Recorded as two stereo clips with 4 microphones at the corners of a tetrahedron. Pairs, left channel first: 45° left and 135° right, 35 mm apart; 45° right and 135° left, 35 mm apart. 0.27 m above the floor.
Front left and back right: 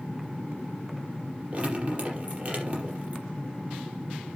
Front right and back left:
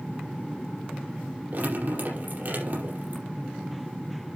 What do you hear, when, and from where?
1.5 s dripping: 170° left, 5.5 m